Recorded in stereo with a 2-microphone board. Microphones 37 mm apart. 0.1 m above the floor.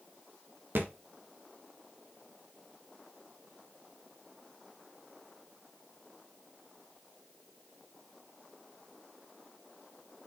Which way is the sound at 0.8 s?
60° right (ahead or behind).